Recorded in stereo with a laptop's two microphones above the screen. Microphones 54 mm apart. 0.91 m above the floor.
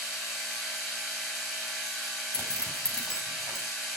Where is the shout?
I don't hear a shout.